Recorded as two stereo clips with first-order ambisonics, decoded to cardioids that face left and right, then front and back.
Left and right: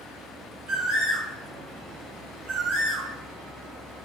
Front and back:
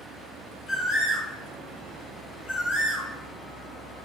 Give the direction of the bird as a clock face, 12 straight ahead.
2 o'clock.